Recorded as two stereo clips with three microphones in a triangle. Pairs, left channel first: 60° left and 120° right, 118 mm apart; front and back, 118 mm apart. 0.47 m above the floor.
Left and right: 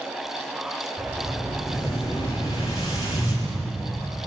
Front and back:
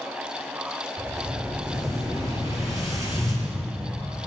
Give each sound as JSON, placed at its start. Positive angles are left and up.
{"t": 1.0, "sound": "an explosion", "azimuth_deg": 115, "distance_m": 7.0}